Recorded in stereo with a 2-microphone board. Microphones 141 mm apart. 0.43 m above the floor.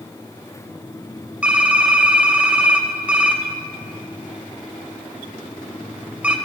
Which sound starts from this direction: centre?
Typing on a keyboard, at 1.4 s.